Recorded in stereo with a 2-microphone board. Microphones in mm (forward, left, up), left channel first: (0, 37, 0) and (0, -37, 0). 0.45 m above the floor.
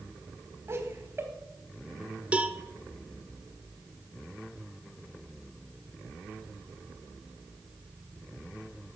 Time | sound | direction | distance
0.7 | laughter | 35° right (ahead or behind) | 3.5 m
2.3 | a cowbell | 20° right (ahead or behind) | 1.0 m